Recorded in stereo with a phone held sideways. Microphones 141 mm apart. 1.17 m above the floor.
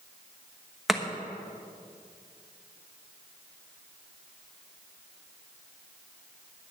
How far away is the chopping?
About 1.1 m.